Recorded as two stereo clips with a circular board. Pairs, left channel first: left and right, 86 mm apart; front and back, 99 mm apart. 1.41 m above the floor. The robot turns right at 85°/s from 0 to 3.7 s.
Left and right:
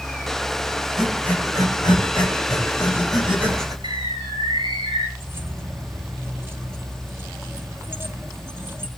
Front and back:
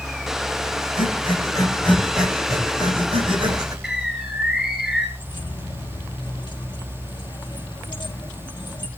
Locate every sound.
1.0 s breathing: 5° right, 9 m; by 3.7 s 130° right, 9 m
3.8 s a bird: 95° right, 8.5 m
5.2 s keys jangling: 30° right, 2.5 m